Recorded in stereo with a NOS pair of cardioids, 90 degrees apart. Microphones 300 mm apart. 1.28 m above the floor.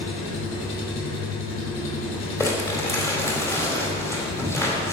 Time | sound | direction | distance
0.0 | an engine running | 60° left | 3 m
2.4 | crumpling | 10° left | 3.5 m